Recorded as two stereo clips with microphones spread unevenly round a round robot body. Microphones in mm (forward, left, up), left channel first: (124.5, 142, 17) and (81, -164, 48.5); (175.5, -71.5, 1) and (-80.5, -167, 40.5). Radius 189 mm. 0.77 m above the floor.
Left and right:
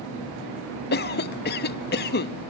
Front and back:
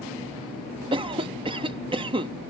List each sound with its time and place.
0.9 s a cough: 125° left